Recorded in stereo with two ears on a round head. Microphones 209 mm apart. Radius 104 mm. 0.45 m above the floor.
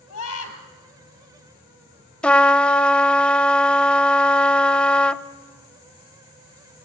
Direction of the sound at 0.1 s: 70° left (ahead or behind).